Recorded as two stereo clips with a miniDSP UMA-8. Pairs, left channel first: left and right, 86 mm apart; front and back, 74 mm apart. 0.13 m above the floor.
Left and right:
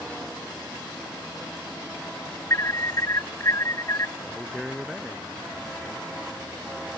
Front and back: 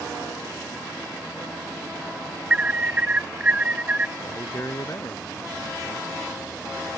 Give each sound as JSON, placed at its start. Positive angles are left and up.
{"t": 2.5, "sound": "an alarm", "azimuth_deg": 115}
{"t": 4.2, "sound": "a man speaking", "azimuth_deg": -5}